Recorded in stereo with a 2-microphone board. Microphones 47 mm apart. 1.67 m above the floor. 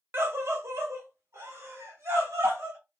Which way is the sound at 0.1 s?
65° right (ahead or behind).